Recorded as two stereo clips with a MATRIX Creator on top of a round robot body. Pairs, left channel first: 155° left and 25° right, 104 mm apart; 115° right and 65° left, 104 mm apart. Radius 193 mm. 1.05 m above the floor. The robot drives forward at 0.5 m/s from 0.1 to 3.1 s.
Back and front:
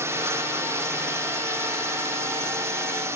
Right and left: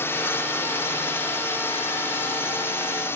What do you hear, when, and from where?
0.0 s a drone: 65° right; by 3.2 s 60° right